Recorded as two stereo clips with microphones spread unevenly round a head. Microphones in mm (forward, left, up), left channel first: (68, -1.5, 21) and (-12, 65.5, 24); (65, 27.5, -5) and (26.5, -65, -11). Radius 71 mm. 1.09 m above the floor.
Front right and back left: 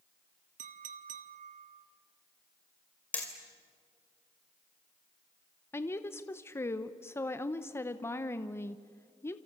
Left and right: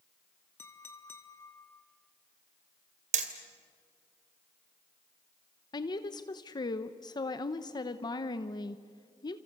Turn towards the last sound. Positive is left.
turn(degrees=20)